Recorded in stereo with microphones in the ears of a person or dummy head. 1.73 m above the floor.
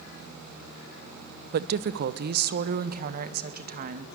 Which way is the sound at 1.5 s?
50° right (ahead or behind).